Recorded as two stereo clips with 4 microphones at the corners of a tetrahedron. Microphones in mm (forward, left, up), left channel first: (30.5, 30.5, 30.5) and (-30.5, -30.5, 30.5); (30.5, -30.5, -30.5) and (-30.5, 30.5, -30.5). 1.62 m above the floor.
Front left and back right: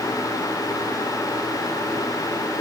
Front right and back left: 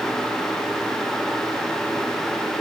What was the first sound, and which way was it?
Only background noise.